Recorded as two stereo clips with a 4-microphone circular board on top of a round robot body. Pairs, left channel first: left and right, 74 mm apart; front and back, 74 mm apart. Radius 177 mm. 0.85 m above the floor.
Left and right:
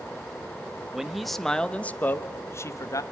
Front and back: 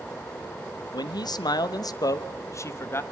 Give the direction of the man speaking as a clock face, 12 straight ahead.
12 o'clock.